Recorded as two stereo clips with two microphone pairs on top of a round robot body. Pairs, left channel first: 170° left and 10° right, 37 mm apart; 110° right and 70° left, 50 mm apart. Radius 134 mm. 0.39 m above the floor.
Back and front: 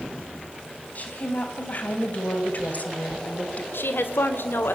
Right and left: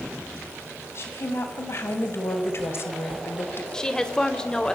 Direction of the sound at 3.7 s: 175° left.